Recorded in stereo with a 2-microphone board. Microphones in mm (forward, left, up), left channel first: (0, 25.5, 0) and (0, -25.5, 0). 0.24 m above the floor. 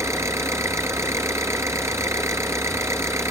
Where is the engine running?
70° right (ahead or behind), 1.6 m.